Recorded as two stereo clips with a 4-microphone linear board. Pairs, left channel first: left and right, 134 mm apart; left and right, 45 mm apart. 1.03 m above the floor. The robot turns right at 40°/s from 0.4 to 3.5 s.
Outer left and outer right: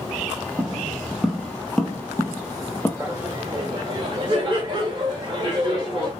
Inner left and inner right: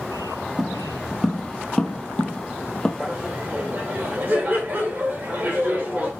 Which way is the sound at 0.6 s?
10° right (ahead or behind).